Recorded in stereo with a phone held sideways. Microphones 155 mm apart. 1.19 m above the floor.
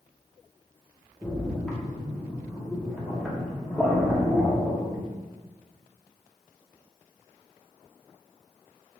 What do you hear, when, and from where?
1.2 s a splash: centre (ahead or behind), 0.9 m